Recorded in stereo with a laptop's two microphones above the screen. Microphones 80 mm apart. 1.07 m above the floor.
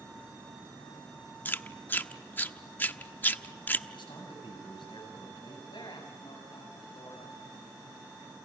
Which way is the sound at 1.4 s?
25° left (ahead or behind).